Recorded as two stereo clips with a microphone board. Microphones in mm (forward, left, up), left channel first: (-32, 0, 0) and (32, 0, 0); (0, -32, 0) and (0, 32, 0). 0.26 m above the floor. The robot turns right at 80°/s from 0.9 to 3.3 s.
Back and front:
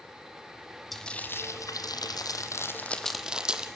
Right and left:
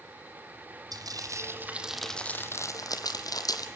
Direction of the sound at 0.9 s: 90° left.